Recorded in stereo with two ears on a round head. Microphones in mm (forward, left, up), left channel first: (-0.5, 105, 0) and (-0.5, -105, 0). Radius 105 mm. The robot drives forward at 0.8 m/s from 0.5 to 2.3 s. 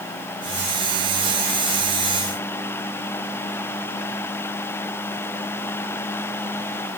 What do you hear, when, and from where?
Only background noise.